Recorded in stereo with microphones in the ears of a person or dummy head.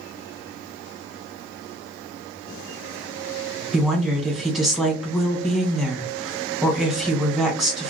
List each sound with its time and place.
3.7 s a woman speaking: centre (ahead or behind), 1.2 m